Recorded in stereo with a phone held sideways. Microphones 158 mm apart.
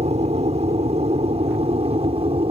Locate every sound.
0.0 s an aircraft: 45° right (ahead or behind); by 2.5 s 40° right (ahead or behind)